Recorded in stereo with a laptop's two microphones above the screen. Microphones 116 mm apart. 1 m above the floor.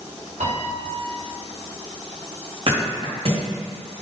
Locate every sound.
0.4 s a piano: 75° right (ahead or behind), 1.6 m
2.7 s a thud: 55° right (ahead or behind), 1.7 m